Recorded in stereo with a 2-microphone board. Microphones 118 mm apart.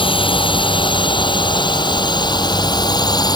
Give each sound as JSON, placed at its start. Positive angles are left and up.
{"t": 0.0, "sound": "a drone", "side_deg": 45}